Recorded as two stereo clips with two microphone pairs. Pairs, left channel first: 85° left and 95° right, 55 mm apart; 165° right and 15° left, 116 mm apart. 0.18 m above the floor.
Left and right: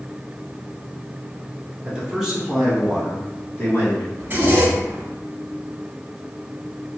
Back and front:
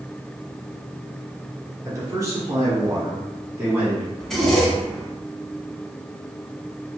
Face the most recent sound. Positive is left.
turn(degrees=-75)